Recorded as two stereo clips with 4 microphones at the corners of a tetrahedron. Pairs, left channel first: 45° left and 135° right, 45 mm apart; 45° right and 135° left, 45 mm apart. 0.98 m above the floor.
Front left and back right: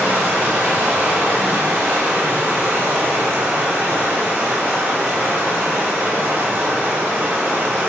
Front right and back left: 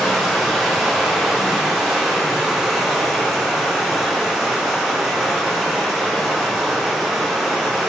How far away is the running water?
About 0.8 m.